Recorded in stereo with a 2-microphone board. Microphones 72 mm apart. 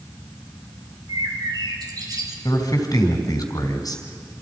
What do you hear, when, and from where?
1.1 s a bird: 60° right (ahead or behind), 3 m
2.5 s a man speaking: 60° left (ahead or behind), 2.5 m